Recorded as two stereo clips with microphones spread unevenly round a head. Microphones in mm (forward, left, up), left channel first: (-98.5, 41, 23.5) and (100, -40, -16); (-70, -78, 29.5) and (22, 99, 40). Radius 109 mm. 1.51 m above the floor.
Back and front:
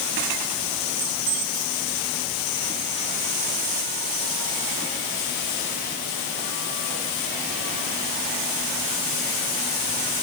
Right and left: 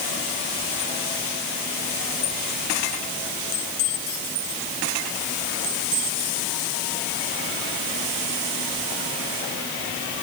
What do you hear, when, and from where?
Only background noise.